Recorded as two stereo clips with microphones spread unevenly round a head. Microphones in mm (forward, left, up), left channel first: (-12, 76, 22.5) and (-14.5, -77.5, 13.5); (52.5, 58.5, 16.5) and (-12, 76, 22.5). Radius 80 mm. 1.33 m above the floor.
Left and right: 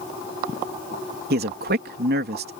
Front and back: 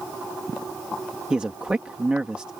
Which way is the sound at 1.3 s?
110° right.